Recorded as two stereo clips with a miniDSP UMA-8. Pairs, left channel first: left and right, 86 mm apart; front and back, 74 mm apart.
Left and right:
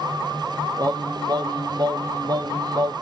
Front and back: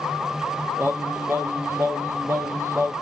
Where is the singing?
125° right, 0.7 m.